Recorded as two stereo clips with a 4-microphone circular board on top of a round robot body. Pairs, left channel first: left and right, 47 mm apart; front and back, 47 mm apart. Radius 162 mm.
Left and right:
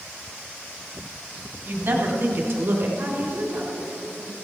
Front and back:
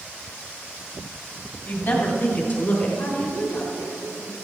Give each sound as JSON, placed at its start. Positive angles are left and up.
{"t": 1.6, "sound": "a woman speaking", "azimuth_deg": -40, "distance_m": 2.5}
{"t": 3.0, "sound": "a woman speaking", "azimuth_deg": -35, "distance_m": 6.0}